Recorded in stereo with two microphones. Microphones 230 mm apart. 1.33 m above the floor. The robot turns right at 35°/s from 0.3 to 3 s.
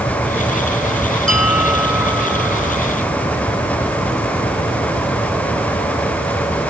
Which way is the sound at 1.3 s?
75° left.